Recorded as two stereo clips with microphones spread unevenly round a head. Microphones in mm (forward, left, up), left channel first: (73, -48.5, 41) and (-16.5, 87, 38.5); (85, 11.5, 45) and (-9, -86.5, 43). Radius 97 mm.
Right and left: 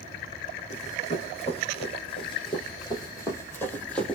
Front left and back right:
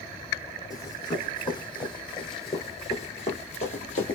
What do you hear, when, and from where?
0.7 s running footsteps: 15° right, 2.5 m; by 4.2 s 25° left, 1.7 m